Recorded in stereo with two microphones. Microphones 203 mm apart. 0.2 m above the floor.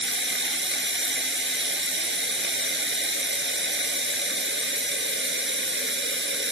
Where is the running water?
70° right (ahead or behind), 2 m.